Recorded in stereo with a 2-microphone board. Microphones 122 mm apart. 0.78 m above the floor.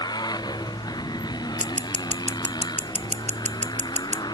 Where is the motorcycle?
35° left (ahead or behind).